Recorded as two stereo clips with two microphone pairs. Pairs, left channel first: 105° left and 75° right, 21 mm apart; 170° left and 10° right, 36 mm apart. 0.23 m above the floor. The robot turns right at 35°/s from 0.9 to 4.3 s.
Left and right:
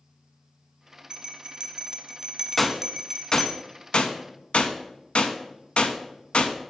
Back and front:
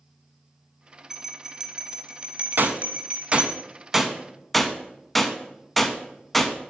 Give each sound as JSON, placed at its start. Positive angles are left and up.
{"t": 1.1, "sound": "a bell", "azimuth_deg": -90, "distance_m": 0.8}
{"t": 2.6, "sound": "a gunshot", "azimuth_deg": 20, "distance_m": 0.6}